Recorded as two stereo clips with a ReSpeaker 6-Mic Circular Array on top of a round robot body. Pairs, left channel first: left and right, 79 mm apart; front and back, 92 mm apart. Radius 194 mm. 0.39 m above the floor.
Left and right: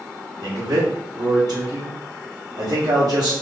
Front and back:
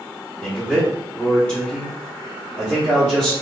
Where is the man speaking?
75° right, 1.4 m.